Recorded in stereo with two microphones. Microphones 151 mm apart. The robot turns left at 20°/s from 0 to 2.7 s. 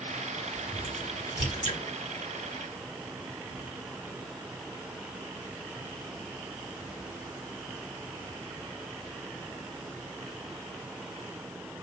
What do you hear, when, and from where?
0.6 s a crack: 35° left (ahead or behind), 2 m; by 1.8 s 55° left (ahead or behind), 2 m